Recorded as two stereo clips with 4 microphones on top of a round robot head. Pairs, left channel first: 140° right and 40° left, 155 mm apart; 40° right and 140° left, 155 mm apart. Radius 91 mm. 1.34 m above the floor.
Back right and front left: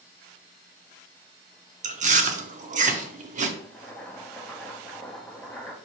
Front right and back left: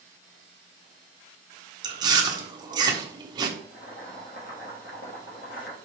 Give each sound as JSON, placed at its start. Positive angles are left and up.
{"t": 1.8, "sound": "chewing", "azimuth_deg": 75, "distance_m": 0.6}
{"t": 3.6, "sound": "boiling", "azimuth_deg": -55, "distance_m": 1.0}